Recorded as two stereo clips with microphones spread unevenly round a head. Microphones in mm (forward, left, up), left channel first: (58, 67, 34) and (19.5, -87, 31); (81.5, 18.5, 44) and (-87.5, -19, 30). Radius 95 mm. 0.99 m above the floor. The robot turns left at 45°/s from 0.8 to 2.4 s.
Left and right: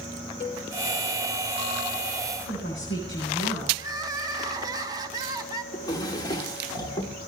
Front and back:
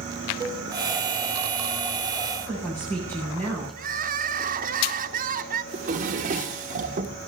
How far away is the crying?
About 1.1 m.